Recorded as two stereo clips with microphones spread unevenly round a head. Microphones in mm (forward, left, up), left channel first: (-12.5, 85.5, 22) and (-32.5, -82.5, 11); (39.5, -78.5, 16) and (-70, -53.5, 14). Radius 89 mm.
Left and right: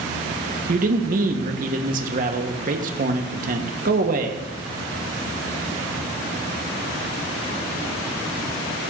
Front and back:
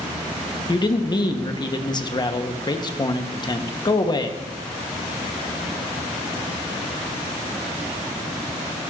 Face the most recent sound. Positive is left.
turn(degrees=-60)